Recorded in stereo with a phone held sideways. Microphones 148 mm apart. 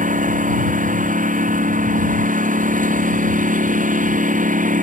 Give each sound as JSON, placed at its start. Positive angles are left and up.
{"t": 0.0, "sound": "a lawn mower", "side_deg": -60}